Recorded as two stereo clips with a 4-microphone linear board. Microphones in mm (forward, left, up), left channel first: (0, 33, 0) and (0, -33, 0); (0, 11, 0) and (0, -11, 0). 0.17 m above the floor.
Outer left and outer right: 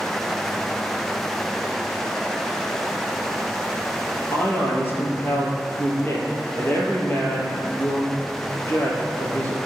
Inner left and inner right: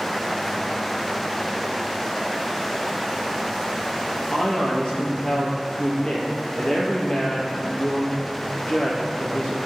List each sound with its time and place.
4.3 s a man speaking: 35° left (ahead or behind), 4.5 m